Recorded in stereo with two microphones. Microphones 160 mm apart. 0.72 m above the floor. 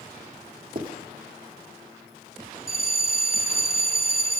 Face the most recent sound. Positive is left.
turn(degrees=65)  # may be behind; listen again after turning